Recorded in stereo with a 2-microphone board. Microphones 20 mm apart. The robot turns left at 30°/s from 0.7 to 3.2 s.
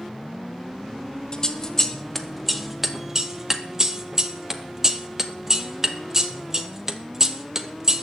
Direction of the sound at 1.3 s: 30° left (ahead or behind).